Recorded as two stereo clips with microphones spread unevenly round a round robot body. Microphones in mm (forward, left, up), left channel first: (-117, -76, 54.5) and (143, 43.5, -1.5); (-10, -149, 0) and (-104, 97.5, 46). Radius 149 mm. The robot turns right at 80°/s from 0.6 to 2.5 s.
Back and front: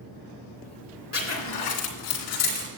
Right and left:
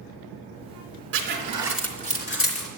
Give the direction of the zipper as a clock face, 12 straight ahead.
7 o'clock.